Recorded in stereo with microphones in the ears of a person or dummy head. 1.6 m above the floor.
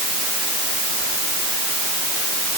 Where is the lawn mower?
I don't hear a lawn mower.